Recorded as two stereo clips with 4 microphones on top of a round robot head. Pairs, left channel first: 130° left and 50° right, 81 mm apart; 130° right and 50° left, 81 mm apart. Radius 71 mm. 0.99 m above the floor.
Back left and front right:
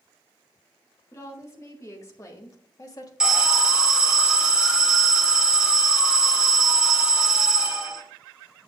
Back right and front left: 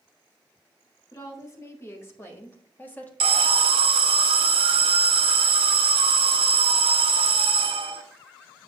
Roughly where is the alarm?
Ahead left.